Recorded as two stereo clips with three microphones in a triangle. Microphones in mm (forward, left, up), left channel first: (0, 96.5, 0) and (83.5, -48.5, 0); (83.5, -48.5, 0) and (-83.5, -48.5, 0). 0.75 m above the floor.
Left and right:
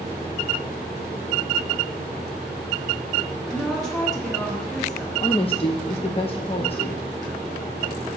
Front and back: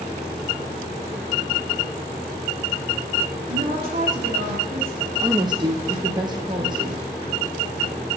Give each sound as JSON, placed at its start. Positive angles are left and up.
{"t": 3.5, "sound": "a woman speaking", "azimuth_deg": -150, "distance_m": 1.9}
{"t": 5.2, "sound": "a woman speaking", "azimuth_deg": 140, "distance_m": 0.5}